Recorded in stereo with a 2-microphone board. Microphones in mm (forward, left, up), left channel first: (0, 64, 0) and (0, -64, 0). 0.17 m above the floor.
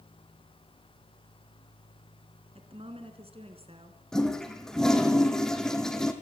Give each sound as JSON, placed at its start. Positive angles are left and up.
{"t": 2.5, "sound": "a woman speaking", "side_deg": -50, "distance_m": 2.0}
{"t": 4.1, "sound": "a toilet flushing", "side_deg": 5, "distance_m": 2.0}